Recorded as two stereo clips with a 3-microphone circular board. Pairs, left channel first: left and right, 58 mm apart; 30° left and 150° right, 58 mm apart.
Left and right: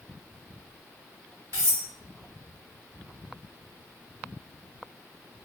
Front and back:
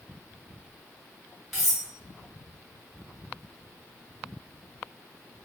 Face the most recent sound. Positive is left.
turn(degrees=-60)